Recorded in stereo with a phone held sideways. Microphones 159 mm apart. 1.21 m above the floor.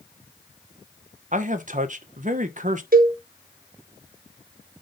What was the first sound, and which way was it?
A man speaking, 55° right (ahead or behind).